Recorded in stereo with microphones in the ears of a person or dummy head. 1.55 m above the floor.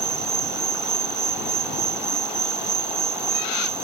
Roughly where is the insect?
Centre.